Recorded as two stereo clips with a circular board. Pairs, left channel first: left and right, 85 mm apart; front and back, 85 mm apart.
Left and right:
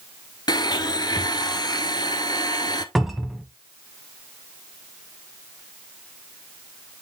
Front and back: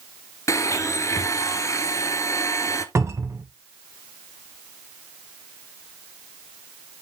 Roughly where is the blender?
Ahead left.